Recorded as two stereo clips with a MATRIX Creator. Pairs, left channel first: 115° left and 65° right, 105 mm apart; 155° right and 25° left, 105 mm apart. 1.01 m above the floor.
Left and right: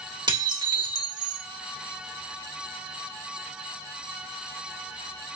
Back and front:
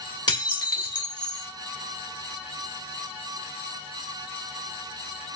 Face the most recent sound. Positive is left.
turn(degrees=-110)